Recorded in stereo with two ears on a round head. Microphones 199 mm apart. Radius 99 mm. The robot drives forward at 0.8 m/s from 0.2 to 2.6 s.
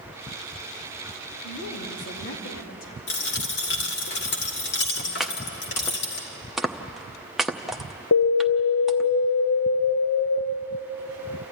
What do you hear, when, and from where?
1.4 s a woman speaking: 75° left (ahead or behind), 3.5 m; by 3.0 s 65° left (ahead or behind), 4 m
3.1 s a dropped coin: 50° left (ahead or behind), 2.5 m
5.2 s chopping: centre (ahead or behind), 0.8 m
8.1 s an alarm: 60° left (ahead or behind), 1.2 m